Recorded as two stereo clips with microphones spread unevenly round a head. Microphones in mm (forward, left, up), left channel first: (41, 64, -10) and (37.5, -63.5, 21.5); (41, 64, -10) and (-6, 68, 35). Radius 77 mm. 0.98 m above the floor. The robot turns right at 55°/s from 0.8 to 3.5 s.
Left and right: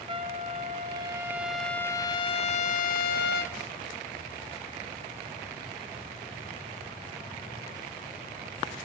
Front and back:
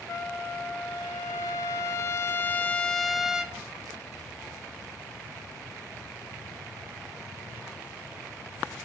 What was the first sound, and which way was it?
A trumpet, 45° right.